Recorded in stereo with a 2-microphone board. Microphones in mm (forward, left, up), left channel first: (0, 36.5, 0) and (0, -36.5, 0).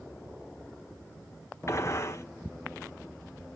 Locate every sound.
1.7 s a gunshot: 40° left (ahead or behind), 1.4 m